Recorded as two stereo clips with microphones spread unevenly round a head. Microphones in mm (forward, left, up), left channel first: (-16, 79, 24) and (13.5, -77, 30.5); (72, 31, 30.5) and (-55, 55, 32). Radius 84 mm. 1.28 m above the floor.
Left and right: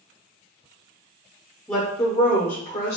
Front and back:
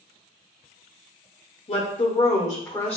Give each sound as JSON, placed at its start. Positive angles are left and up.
{"t": 1.7, "sound": "a woman speaking", "azimuth_deg": 25, "distance_m": 0.7}